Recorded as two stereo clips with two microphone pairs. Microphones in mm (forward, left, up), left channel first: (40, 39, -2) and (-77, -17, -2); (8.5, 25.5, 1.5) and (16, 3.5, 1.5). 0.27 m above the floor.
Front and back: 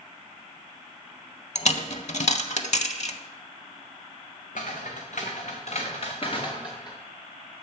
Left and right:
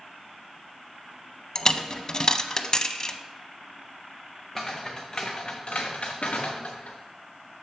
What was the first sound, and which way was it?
A dropped coin, 50° left.